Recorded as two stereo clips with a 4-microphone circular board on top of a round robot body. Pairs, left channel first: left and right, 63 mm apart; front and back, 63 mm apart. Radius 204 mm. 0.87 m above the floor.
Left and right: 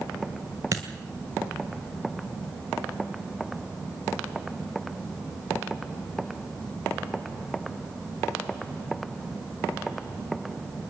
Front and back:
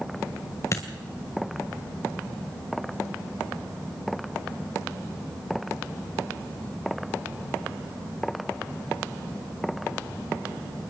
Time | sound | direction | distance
0.7 | a dropped coin | 50° right | 1.6 m